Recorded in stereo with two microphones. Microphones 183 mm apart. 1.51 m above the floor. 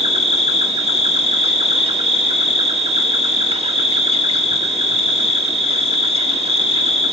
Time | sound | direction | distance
0.0 | an insect | 30° right (ahead or behind) | 1.5 m